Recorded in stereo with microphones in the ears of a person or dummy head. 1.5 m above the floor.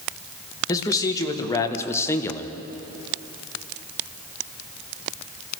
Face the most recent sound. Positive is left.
turn(degrees=15)  # may be behind; listen again after turning